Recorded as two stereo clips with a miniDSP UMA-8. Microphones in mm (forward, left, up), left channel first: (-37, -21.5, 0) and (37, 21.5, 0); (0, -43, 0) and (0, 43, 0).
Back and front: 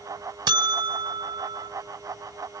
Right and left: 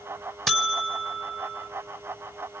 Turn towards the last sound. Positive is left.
turn(degrees=0)